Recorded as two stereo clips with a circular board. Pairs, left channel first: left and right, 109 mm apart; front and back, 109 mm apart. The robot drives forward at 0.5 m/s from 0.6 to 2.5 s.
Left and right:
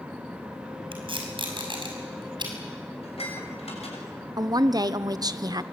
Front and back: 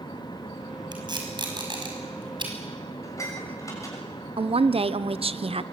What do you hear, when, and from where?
0.9 s tape being pulled: 130° right, 5.5 m; by 2.5 s 135° right, 6 m
3.0 s dishes clattering: 65° left, 6.5 m
4.4 s a woman speaking: 145° right, 0.9 m